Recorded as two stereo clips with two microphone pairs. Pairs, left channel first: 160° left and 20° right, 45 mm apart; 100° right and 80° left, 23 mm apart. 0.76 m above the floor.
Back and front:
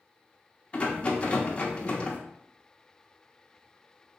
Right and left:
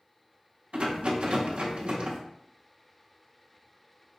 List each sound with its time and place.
0.7 s a rattle: 100° left, 0.7 m